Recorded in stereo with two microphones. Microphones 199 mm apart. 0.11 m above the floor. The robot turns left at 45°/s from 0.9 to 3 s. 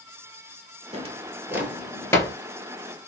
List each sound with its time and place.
0.9 s a drawer: 30° right (ahead or behind), 0.8 m; by 2.4 s 20° left (ahead or behind), 0.8 m